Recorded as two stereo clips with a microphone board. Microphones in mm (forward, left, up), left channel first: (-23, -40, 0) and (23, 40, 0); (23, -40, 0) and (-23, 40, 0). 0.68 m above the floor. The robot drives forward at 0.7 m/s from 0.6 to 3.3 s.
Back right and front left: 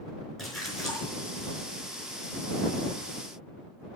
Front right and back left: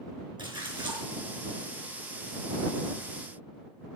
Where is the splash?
150° left, 4.5 m; by 1.1 s 155° left, 5 m.